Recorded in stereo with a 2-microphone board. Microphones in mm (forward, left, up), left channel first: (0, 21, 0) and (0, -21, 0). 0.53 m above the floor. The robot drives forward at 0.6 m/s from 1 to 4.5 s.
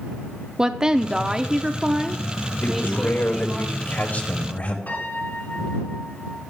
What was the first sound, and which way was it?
A woman speaking, 15° right (ahead or behind).